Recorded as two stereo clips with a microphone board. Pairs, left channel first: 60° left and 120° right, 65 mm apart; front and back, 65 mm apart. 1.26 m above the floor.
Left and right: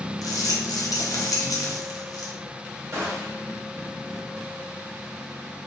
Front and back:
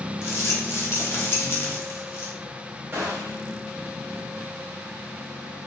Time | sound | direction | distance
0.2 | a rattle | 45° left | 0.6 m
2.9 | a gunshot | 145° right | 0.9 m